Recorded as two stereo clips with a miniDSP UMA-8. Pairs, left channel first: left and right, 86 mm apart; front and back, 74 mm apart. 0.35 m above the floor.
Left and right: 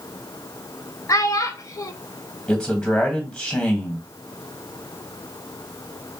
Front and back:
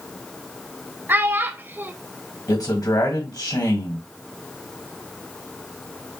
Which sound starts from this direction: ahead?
A man speaking, at 2.5 s.